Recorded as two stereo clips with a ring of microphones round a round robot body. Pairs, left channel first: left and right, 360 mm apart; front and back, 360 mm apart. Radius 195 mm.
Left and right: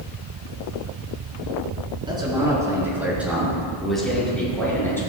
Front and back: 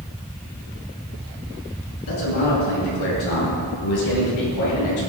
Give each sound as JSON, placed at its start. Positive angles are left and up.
{"t": 2.1, "sound": "a man speaking", "azimuth_deg": -15, "distance_m": 4.0}